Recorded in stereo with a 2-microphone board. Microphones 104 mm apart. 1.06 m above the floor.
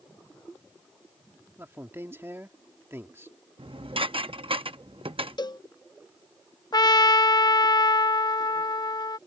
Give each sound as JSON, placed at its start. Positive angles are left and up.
{"t": 1.6, "sound": "a man speaking", "side_deg": -25}
{"t": 3.6, "sound": "dishes clattering", "side_deg": -65}
{"t": 5.4, "sound": "a cowbell", "side_deg": 45}
{"t": 6.7, "sound": "a trumpet", "side_deg": 45}